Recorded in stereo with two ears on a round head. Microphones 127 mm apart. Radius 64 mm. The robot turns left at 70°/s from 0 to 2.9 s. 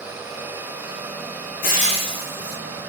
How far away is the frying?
About 4 m.